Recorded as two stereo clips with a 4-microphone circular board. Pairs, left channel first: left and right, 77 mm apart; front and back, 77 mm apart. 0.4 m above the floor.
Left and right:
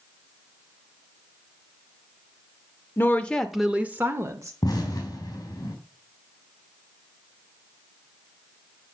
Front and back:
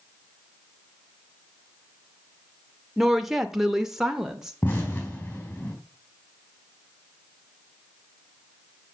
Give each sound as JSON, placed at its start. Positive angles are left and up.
{"t": 3.0, "sound": "a woman speaking", "azimuth_deg": 95, "distance_m": 1.0}
{"t": 4.6, "sound": "an explosion", "azimuth_deg": 55, "distance_m": 4.0}